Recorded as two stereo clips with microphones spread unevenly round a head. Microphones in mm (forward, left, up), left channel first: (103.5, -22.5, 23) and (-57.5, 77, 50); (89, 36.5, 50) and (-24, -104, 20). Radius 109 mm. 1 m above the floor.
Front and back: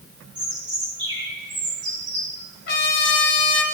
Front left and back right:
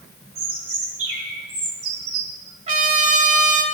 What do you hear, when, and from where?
0.3 s a bird: 145° right, 1.9 m
2.7 s a trumpet: 80° right, 2.0 m